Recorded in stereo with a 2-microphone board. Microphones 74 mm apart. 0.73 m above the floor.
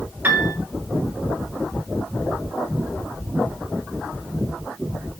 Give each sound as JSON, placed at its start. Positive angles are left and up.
{"t": 0.2, "sound": "a piano", "side_deg": -25, "distance_m": 1.2}